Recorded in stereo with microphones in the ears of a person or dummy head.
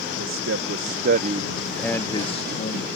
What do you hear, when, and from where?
0.2 s a man speaking: 80° right; by 2.9 s 45° left (ahead or behind)